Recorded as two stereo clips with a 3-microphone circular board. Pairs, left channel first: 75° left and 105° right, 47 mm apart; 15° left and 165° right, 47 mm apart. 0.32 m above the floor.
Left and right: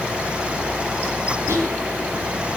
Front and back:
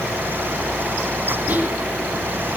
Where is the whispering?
110° right, 6.5 m.